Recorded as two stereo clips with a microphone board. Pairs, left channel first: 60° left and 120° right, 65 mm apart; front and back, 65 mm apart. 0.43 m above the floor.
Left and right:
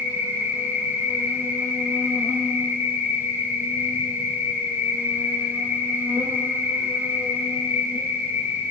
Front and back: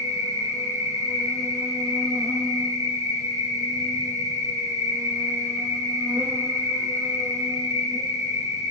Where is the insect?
175° right, 0.8 m.